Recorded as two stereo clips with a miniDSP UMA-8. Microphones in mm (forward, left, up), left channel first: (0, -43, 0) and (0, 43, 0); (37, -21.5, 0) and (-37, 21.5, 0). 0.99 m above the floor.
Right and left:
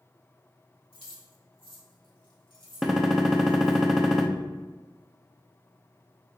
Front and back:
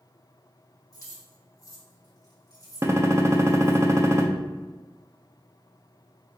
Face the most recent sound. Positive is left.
turn(degrees=175)